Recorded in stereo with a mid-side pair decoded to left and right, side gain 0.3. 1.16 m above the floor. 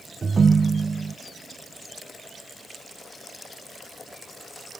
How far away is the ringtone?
About 0.7 m.